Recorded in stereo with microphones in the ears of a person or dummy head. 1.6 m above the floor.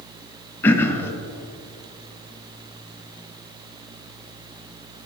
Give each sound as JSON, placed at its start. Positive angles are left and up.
{"t": 0.6, "sound": "throat clearing", "side_deg": 10, "distance_m": 0.7}